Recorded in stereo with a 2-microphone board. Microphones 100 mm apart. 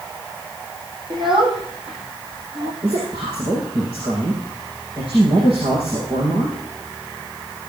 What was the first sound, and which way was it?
A child speaking, 55° right (ahead or behind).